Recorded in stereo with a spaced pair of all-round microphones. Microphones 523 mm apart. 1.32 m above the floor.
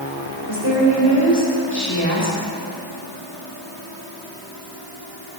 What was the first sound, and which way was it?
A woman speaking, 55° left (ahead or behind).